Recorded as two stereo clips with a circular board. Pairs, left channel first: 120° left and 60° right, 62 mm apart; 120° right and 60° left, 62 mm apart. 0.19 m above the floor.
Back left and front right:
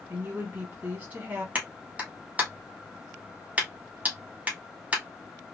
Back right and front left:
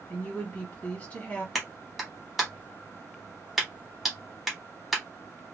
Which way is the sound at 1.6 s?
25° right.